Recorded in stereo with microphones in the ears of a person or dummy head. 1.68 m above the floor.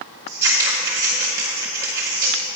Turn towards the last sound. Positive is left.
turn(degrees=-15)  # may be behind; listen again after turning